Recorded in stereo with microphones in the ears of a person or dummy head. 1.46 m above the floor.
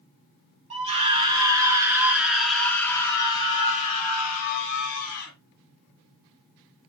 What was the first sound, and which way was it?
A scream, 30° right (ahead or behind).